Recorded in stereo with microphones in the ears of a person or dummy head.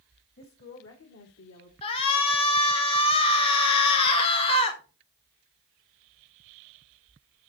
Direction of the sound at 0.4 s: 50° left (ahead or behind).